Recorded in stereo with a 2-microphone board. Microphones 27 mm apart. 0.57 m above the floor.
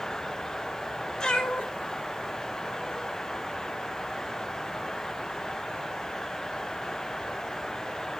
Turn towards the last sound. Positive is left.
turn(degrees=50)  # may be behind; listen again after turning